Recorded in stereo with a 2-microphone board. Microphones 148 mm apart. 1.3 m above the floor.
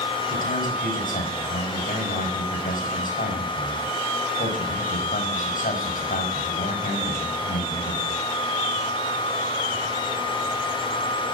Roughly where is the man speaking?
Left.